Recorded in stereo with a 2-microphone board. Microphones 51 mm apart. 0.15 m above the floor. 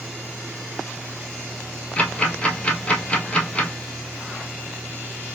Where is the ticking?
25° left (ahead or behind), 1.3 m.